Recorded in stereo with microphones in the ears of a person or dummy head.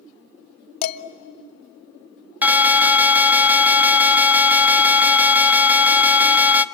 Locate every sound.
0.8 s dishes clattering: 55° left (ahead or behind), 0.9 m
2.4 s an alarm: 5° right (ahead or behind), 0.6 m